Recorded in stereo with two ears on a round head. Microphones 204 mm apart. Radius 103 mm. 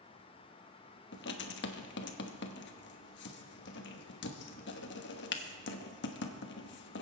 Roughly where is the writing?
Left.